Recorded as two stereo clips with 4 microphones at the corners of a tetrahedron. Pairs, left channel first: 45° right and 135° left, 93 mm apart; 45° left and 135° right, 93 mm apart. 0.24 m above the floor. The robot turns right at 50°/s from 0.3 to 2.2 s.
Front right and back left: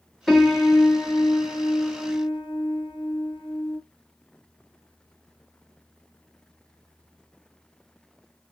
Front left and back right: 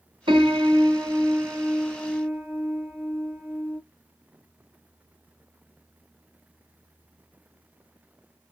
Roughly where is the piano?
Behind right.